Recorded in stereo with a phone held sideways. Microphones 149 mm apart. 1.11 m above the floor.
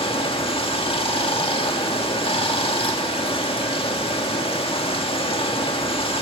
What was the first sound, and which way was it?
Running water, 40° left (ahead or behind).